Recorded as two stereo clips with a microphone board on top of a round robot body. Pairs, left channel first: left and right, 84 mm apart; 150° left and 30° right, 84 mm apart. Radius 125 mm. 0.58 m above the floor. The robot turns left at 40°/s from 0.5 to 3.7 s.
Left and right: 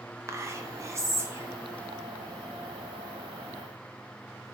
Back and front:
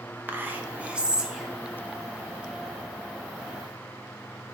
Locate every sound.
0.3 s whispering: 80° right, 0.7 m; by 1.5 s 120° right, 0.7 m